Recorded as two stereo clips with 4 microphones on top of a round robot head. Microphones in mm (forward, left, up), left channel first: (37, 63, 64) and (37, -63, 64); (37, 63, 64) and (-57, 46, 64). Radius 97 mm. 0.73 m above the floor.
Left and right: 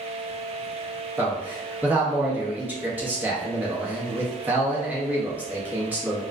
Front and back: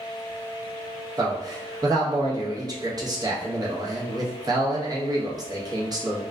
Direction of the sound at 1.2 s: 160° right.